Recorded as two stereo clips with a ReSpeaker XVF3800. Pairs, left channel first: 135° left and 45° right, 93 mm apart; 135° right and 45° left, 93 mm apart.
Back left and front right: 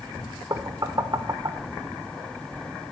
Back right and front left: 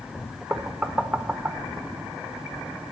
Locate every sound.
0.5 s knocking: 25° right, 0.6 m